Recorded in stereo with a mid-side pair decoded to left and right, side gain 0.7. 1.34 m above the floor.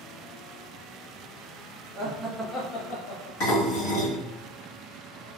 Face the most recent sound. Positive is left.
turn(degrees=70)